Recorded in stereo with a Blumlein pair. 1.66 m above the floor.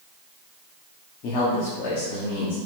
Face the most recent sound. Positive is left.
turn(degrees=35)